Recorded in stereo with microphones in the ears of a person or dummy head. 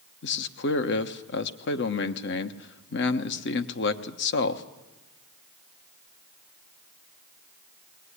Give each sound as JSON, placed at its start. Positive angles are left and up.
{"t": 0.2, "sound": "a man speaking", "side_deg": 65, "distance_m": 1.2}